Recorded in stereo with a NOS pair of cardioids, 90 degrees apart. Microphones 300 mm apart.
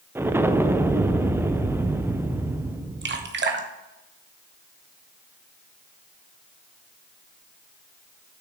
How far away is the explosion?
About 0.5 m.